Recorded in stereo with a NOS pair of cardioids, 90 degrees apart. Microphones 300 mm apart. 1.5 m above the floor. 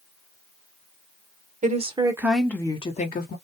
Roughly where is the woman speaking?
Ahead right.